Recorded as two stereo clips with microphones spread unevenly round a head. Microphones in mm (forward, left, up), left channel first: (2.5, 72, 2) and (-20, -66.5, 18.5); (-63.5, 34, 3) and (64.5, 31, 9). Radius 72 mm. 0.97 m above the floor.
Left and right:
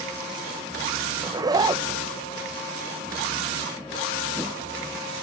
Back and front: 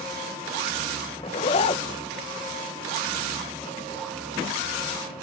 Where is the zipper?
160° right, 0.6 m.